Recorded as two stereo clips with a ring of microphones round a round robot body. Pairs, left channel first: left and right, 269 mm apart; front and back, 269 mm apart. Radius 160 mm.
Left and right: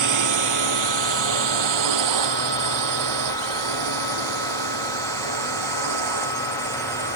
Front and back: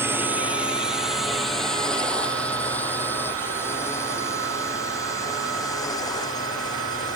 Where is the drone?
95° right; by 7.2 s 75° right.